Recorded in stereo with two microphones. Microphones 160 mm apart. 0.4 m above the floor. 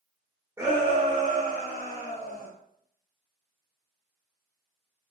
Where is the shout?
20° right (ahead or behind), 0.9 m; by 2.5 s 70° right (ahead or behind), 2.5 m.